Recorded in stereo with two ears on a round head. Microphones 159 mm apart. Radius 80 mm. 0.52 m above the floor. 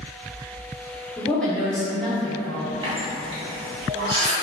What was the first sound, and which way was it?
A woman speaking, 5° left (ahead or behind).